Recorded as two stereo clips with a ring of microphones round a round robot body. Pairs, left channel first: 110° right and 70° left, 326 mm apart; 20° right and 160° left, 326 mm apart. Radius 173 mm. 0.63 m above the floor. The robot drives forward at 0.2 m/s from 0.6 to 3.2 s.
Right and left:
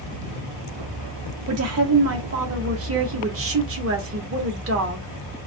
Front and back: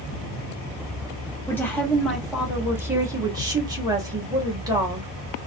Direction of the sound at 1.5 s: 55° left.